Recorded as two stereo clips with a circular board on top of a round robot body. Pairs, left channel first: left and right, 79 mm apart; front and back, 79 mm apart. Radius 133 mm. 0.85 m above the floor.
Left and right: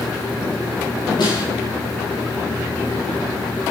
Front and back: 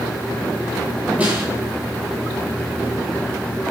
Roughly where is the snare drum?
Left.